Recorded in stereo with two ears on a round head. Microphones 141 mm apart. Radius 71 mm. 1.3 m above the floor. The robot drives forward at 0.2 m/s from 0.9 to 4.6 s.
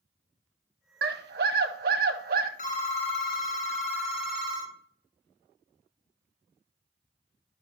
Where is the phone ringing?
50° left (ahead or behind), 1.2 m; by 4.8 s 40° left (ahead or behind), 1.5 m.